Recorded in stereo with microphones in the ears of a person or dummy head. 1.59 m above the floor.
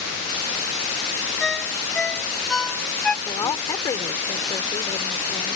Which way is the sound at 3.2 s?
25° left (ahead or behind).